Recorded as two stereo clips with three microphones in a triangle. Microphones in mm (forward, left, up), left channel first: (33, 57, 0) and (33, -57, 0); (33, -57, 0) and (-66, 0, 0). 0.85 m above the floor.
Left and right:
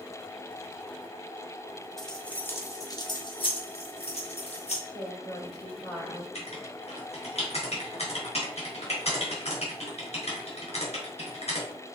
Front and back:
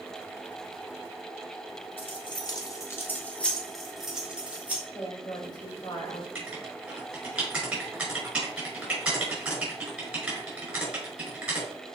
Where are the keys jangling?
5° left, 1.6 m; by 4.8 s 75° left, 2.5 m.